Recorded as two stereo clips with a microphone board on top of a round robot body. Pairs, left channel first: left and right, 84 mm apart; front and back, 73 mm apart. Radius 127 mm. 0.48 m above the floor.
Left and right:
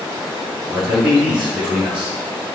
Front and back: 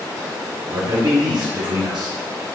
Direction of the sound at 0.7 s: 165° right.